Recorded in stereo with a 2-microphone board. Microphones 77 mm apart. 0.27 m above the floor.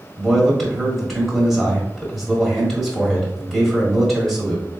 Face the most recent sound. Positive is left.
turn(degrees=5)  # may be behind; listen again after turning